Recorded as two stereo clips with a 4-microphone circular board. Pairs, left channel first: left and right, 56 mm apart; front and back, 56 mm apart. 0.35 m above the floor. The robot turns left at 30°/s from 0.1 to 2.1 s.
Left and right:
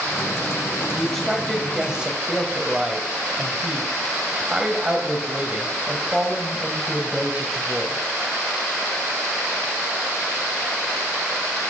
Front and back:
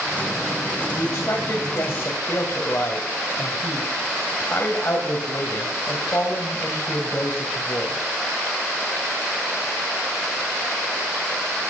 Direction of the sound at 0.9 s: 10° left.